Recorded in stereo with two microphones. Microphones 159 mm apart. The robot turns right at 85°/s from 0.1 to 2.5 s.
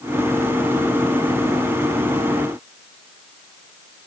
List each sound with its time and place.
Only background noise.